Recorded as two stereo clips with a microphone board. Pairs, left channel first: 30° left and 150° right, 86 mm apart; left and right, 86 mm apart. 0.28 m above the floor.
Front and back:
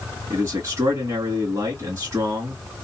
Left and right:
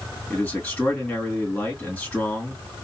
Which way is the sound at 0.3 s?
165° left.